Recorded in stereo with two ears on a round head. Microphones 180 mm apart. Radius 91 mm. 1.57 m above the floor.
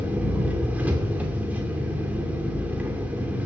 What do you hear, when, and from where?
0.0 s an engine running: 10° right (ahead or behind), 2.5 m